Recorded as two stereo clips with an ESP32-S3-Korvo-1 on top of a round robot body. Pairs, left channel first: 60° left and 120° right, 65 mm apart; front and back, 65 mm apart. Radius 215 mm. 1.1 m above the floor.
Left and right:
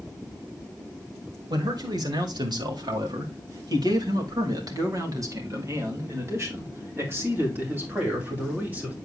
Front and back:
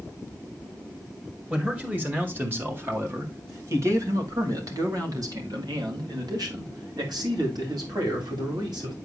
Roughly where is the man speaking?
Right.